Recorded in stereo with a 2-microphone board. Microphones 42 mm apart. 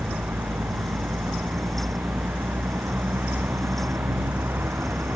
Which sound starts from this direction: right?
A vehicle, at 0.0 s.